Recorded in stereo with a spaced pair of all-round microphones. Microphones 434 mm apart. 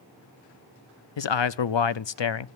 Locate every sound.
1.2 s a man speaking: 80° left, 0.6 m